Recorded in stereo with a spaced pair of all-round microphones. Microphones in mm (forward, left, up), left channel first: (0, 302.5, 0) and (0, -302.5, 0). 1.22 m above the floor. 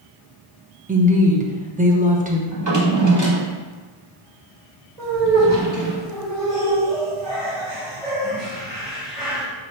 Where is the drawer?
30° right (ahead or behind), 0.9 m.